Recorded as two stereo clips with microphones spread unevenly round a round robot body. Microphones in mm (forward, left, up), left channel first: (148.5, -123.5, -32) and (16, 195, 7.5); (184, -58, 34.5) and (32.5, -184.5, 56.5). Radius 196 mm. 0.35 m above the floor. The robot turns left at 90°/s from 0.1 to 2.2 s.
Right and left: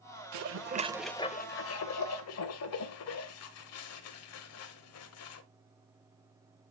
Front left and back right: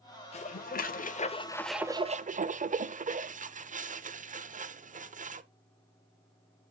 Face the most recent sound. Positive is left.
turn(degrees=-85)